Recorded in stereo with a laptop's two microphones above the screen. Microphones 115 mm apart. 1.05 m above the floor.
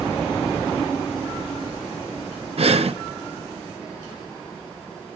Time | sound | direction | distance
2.6 | breathing | 60° right (ahead or behind) | 0.6 m